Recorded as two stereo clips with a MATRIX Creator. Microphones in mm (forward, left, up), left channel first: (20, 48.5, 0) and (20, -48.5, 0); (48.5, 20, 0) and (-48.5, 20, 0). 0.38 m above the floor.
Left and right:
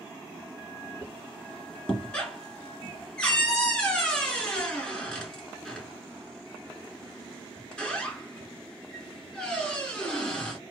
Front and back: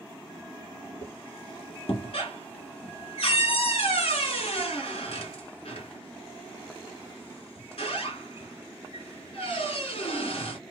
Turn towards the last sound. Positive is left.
turn(degrees=10)